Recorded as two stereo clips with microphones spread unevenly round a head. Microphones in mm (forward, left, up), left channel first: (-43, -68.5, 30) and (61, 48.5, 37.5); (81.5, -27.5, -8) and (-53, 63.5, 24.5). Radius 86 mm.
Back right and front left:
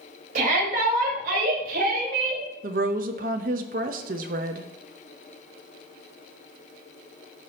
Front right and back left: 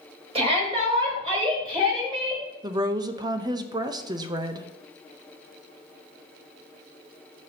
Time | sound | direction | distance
0.3 | a shout | 90° left | 4 m
2.6 | a woman speaking | 85° left | 0.8 m